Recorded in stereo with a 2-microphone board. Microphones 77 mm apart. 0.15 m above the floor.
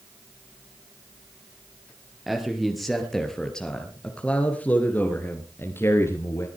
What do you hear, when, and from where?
2.3 s a man speaking: centre (ahead or behind), 3 m; by 6.5 s 40° left (ahead or behind), 2.5 m